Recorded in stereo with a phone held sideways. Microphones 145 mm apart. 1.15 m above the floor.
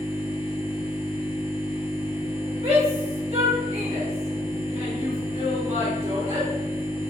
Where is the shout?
45° right (ahead or behind), 1.3 m.